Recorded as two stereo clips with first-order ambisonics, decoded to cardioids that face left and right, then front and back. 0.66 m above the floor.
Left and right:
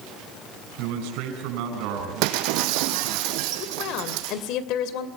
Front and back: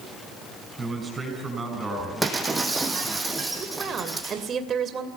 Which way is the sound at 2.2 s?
100° right.